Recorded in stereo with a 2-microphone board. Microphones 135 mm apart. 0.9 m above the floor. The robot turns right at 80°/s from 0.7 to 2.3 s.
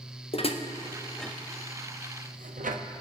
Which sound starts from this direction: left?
Dishes clattering, at 0.3 s.